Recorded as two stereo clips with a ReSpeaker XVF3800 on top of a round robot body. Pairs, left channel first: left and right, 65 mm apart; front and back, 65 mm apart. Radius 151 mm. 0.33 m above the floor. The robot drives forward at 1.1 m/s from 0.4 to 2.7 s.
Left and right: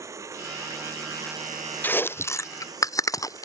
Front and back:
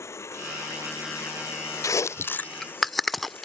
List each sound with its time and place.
0.0 s running water: 50° right; by 3.4 s 60° right
1.8 s chewing: 30° left; by 3.4 s 85° left